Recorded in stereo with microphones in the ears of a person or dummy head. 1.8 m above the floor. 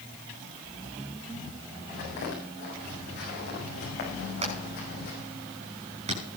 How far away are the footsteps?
About 8 m.